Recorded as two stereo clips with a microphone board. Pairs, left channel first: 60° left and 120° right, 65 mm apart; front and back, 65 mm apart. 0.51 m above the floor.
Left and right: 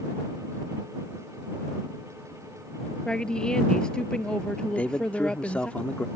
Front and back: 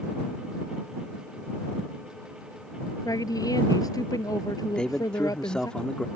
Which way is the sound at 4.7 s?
50° left.